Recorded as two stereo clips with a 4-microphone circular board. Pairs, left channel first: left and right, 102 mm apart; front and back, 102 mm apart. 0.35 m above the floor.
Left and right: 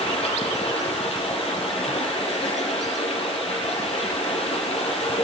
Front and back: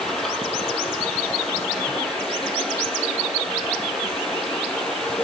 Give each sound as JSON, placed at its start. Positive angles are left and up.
{"t": 0.0, "sound": "running water", "azimuth_deg": 85, "distance_m": 6.5}